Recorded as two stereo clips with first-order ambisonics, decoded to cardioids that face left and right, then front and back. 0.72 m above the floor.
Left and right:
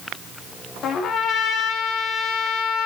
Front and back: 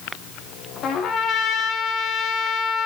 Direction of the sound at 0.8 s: 45° left.